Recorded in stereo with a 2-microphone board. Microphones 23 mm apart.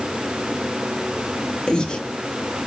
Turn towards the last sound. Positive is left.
turn(degrees=40)  # may be behind; listen again after turning